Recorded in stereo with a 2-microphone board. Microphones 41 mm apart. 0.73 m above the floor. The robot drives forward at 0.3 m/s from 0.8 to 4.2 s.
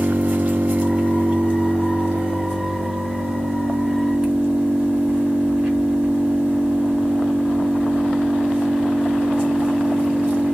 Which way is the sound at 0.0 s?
35° right (ahead or behind).